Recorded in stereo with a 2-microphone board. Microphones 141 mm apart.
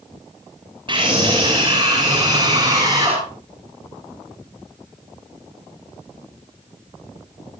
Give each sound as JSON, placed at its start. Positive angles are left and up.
{"t": 0.9, "sound": "a scream", "side_deg": -35, "distance_m": 6.5}